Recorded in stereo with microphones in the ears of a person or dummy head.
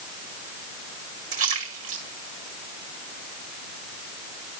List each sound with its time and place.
1.3 s a splash: 30° right (ahead or behind), 1.9 m